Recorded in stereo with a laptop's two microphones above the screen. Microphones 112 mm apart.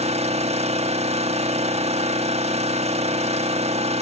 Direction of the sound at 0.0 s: 80° right.